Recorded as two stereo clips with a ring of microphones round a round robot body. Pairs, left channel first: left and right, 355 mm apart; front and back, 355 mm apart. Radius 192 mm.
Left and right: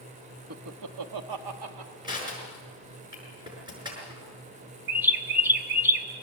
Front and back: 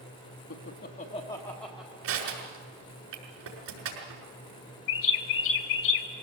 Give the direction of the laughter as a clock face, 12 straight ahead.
2 o'clock.